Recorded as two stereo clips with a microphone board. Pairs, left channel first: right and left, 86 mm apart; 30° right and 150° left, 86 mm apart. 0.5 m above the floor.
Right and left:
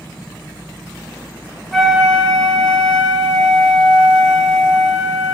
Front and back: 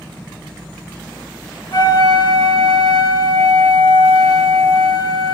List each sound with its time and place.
1.7 s a flute: straight ahead, 0.8 m